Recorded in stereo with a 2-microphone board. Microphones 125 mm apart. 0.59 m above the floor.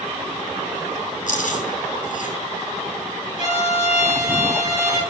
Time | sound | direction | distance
1.3 | chewing | 80° left | 3.5 m
3.4 | a violin | 45° right (ahead or behind) | 5.5 m